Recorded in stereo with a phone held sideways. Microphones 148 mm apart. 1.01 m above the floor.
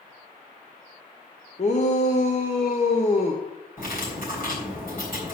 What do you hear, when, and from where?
1.6 s a shout: 45° left (ahead or behind), 1.1 m
3.8 s cutlery clinking: 65° left (ahead or behind), 3.5 m